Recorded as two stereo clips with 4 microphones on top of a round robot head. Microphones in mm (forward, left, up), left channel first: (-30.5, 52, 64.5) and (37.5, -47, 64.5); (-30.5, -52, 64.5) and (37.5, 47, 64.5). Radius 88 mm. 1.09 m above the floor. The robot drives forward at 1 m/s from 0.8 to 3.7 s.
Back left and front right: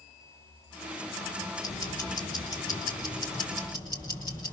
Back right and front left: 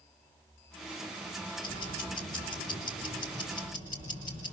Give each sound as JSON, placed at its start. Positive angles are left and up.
{"t": 1.6, "sound": "ticking", "azimuth_deg": -175, "distance_m": 4.0}